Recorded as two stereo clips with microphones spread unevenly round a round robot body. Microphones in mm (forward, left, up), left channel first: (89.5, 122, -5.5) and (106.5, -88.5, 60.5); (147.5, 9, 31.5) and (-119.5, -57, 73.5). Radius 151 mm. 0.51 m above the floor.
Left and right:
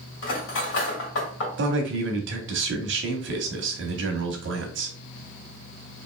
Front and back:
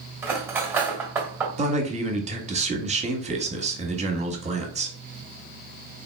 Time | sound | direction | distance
0.2 | cutlery clinking | 110° left | 1.8 m
1.6 | a man speaking | 100° right | 1.0 m